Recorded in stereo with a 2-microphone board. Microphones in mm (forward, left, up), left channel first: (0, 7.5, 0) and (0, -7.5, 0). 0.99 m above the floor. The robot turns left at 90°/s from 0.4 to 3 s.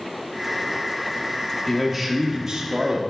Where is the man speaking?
5° left, 1.1 m; by 3.0 s 115° right, 1.1 m.